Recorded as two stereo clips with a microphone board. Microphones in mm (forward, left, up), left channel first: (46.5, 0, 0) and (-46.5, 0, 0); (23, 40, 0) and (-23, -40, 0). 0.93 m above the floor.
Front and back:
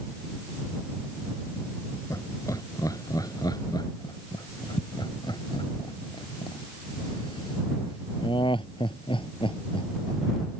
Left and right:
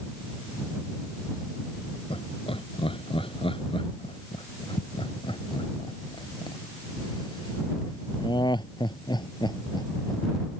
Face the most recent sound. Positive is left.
turn(degrees=20)